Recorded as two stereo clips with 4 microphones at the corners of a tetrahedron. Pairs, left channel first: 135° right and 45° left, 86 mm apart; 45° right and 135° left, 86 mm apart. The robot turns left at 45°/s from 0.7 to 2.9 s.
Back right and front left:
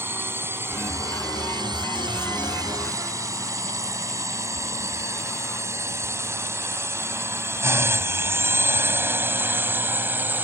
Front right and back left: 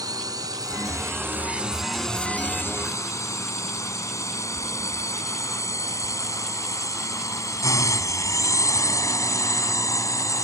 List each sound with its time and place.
0.0 s a drone: 105° left; by 10.4 s 15° right